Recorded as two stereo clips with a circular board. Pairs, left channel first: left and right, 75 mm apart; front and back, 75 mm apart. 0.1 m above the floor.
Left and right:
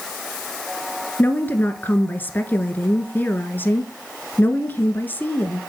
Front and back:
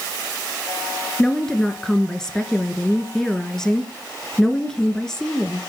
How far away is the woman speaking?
About 1.1 m.